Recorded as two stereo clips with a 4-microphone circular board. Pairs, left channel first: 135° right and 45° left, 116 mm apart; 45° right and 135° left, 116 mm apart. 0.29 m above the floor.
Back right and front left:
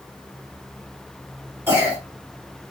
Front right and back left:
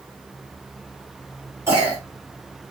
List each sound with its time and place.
1.7 s a cough: 90° left, 1.5 m